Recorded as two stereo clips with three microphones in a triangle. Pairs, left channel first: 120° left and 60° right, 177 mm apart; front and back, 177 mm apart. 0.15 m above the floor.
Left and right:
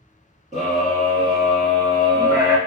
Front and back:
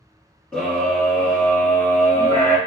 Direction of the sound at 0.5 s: 85° right.